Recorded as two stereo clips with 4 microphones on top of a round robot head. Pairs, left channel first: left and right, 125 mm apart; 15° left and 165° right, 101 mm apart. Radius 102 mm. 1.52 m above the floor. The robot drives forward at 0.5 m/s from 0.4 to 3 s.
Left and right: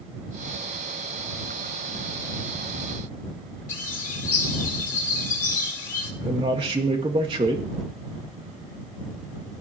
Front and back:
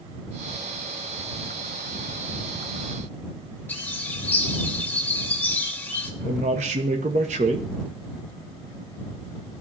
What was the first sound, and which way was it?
A bird, 85° left.